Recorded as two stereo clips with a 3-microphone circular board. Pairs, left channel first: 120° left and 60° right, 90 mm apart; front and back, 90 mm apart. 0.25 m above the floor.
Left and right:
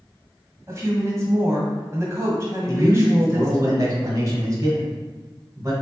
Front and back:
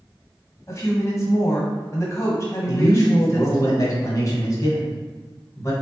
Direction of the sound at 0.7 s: 30° right.